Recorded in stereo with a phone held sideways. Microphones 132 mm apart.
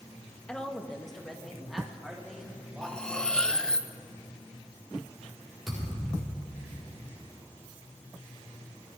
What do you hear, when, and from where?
0.5 s a woman speaking: 10° left (ahead or behind), 0.9 m; by 3.8 s 5° right (ahead or behind), 3 m
2.8 s cutlery clinking: 5° left (ahead or behind), 0.5 m
5.7 s a thud: 5° right (ahead or behind), 5.5 m